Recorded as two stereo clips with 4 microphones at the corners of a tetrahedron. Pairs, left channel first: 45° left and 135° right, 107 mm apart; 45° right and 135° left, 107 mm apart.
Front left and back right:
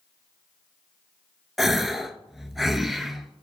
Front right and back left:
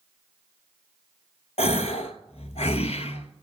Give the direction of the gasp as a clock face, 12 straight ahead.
2 o'clock.